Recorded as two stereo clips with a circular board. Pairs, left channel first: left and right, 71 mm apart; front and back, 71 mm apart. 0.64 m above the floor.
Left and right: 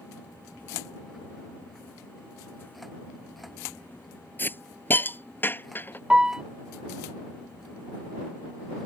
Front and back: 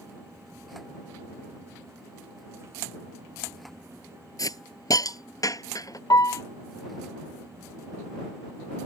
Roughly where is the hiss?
Ahead left.